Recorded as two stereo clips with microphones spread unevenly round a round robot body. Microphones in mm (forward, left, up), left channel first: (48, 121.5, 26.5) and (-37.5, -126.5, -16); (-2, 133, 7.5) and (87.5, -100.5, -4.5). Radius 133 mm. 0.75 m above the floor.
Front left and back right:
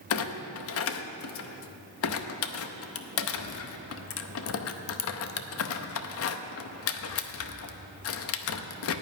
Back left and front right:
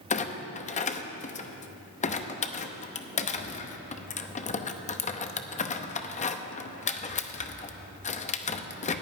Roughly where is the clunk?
Ahead left.